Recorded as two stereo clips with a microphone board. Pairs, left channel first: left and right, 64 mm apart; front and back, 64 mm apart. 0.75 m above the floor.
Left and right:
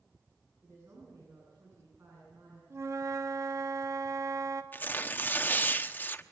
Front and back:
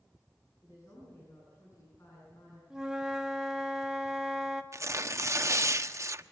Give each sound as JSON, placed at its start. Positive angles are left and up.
{"t": 0.6, "sound": "a woman speaking", "azimuth_deg": -45, "distance_m": 9.0}
{"t": 2.7, "sound": "a flute", "azimuth_deg": -105, "distance_m": 1.4}
{"t": 4.7, "sound": "tearing paper", "azimuth_deg": 150, "distance_m": 0.9}